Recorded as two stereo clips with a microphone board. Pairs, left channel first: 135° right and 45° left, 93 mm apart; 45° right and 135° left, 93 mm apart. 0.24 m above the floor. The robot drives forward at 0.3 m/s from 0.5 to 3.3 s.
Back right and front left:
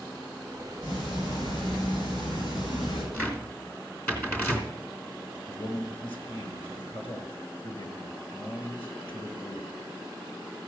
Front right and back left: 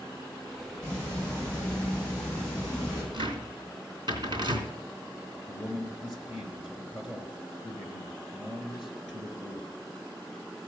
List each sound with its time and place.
0.8 s ticking: 115° right, 8 m; by 3.0 s 120° right, 8.5 m
3.1 s a cupboard door: 155° left, 3 m
5.5 s a man speaking: 140° right, 3.5 m